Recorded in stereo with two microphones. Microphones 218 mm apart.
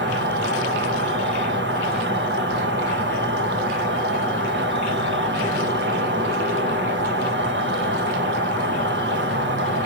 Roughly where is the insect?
Right.